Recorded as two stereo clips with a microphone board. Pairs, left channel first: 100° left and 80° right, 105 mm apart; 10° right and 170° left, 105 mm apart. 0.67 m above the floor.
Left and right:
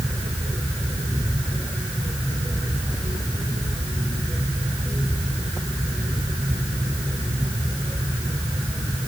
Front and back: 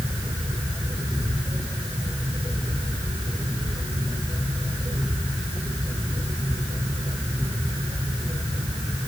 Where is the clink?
No clink in this recording.